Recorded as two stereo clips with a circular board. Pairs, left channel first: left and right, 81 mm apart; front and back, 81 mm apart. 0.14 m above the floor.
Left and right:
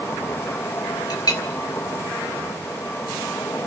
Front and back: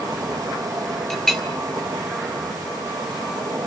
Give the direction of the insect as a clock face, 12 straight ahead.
7 o'clock.